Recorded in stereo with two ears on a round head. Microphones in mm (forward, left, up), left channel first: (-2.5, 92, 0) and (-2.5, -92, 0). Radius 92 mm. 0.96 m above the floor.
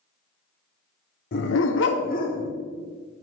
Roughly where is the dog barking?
Left.